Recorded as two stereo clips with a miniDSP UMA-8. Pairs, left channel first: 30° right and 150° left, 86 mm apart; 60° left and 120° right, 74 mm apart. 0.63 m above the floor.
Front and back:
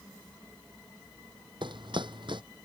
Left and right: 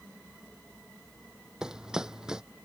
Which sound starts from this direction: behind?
Running footsteps, at 1.6 s.